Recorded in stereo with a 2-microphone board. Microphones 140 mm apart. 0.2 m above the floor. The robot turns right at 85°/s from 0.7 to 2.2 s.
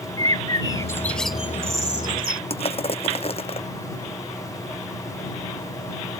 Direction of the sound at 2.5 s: 45° left (ahead or behind).